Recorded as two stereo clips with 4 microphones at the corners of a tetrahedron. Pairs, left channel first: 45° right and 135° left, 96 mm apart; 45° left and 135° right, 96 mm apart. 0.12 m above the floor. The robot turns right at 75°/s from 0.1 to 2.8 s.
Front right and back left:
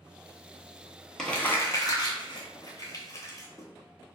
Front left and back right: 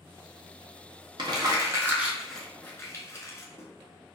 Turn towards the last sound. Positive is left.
turn(degrees=-5)